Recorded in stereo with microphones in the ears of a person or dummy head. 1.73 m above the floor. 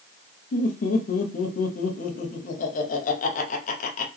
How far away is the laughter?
About 1.0 m.